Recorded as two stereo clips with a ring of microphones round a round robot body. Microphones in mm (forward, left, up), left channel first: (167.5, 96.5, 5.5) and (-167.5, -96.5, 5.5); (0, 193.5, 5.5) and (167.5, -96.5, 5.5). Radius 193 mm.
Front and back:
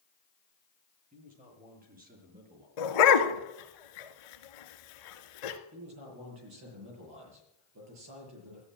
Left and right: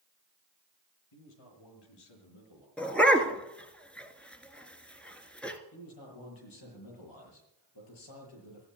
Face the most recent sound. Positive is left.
turn(degrees=160)